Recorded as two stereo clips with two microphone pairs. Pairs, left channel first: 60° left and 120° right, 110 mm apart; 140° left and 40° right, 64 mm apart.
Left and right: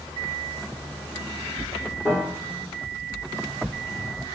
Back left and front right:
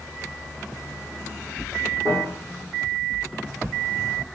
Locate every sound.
2.0 s a piano: straight ahead, 6.5 m